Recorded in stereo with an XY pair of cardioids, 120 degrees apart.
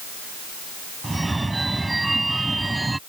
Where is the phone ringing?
10° right.